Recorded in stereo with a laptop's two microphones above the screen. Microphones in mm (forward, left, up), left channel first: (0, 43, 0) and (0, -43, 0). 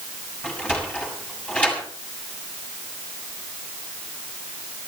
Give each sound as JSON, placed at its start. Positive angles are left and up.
{"t": 0.4, "sound": "a sliding door", "side_deg": 15, "distance_m": 7.0}